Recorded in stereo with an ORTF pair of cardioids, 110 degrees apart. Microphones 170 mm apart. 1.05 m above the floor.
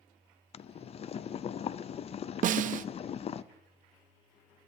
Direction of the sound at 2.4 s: 55° right.